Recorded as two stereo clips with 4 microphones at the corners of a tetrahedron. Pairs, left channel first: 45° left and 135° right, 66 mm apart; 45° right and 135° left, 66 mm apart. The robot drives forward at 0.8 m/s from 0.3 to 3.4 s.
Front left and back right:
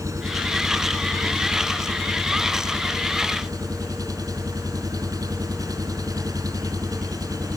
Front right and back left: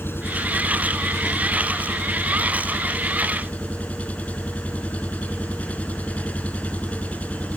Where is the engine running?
100° right; by 7.6 s 115° right.